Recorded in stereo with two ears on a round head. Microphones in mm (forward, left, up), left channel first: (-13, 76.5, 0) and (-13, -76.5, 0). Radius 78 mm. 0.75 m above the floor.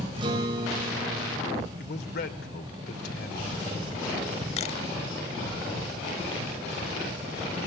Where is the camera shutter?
35° left (ahead or behind), 0.7 m.